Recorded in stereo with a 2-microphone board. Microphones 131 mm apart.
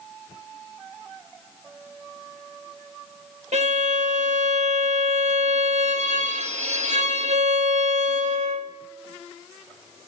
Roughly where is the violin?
Right.